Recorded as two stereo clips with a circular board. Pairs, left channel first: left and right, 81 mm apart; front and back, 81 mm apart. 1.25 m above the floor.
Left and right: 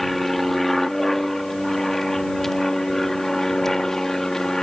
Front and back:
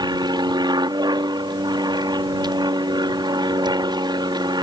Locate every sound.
0.0 s an aircraft: straight behind; by 4.6 s 175° left